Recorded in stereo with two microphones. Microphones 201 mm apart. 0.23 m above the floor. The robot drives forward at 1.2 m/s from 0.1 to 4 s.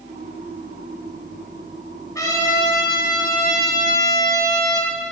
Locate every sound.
2.1 s a trumpet: 15° left (ahead or behind), 2 m; by 4.9 s 20° left (ahead or behind), 1.9 m